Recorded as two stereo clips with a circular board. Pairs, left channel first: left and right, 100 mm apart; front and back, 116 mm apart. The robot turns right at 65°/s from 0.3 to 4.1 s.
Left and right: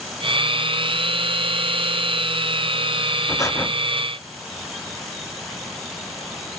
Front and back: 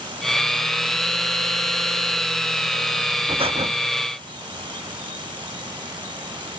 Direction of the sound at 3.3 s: 140° left.